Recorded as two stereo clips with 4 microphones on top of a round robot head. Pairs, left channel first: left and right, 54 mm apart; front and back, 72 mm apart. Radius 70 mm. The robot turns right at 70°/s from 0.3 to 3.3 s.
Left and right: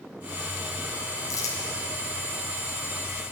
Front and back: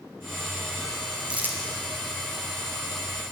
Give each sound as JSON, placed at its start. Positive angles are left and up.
{"t": 1.3, "sound": "crumpling", "azimuth_deg": 100, "distance_m": 2.5}